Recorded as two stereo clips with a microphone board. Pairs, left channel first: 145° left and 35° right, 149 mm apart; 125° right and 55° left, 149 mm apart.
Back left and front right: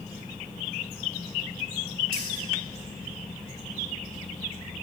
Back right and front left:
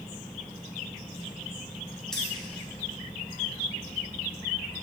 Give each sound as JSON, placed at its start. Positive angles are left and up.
{"t": 2.1, "sound": "keys jangling", "azimuth_deg": -40, "distance_m": 1.7}